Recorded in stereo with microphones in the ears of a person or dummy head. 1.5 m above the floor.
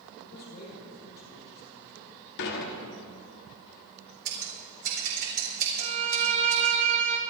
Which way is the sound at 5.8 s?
35° right (ahead or behind).